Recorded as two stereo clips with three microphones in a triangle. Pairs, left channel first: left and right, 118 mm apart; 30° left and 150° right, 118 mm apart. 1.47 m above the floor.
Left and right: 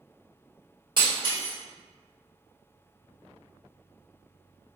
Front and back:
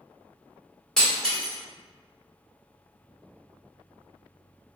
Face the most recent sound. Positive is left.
turn(degrees=-55)